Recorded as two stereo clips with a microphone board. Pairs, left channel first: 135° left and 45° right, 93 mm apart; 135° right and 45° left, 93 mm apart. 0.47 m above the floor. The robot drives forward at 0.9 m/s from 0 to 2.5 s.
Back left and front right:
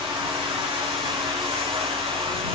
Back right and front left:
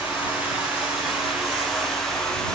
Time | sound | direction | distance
0.0 | running water | 30° right | 5 m